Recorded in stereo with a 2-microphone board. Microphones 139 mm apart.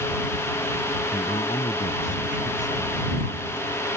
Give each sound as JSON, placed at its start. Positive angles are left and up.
{"t": 1.1, "sound": "a man speaking", "side_deg": 65}